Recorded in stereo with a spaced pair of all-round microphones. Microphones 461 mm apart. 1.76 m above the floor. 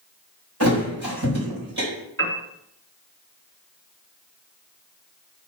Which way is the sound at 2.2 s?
30° right (ahead or behind).